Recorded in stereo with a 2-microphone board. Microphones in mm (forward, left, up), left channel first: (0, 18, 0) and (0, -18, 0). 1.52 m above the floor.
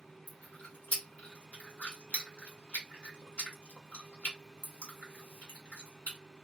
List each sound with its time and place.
0.3 s chewing: 40° left (ahead or behind), 1.2 m